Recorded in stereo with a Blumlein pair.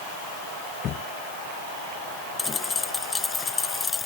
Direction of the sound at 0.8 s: 30° left.